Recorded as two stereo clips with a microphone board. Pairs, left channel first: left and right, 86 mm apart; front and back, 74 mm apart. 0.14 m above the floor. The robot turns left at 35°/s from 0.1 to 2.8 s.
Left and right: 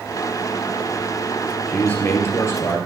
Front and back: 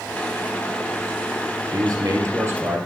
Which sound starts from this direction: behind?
A man speaking, at 1.7 s.